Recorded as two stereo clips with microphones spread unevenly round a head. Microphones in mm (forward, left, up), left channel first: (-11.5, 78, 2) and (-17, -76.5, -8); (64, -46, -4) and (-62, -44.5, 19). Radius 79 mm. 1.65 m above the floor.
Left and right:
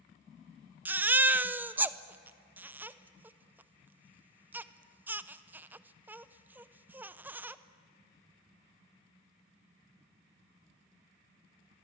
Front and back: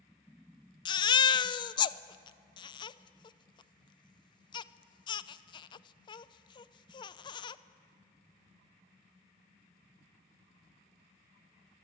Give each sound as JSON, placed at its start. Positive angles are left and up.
{"t": 0.8, "sound": "a baby crying", "azimuth_deg": -20, "distance_m": 0.5}